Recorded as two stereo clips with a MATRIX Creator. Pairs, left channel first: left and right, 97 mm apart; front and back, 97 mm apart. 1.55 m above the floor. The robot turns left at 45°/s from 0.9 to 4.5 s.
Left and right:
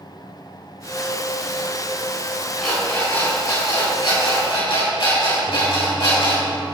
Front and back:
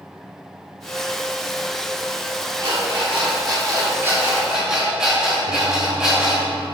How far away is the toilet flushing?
About 1.0 m.